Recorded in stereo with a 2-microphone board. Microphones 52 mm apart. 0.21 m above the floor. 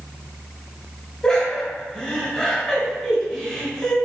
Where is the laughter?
15° left (ahead or behind), 1.0 m.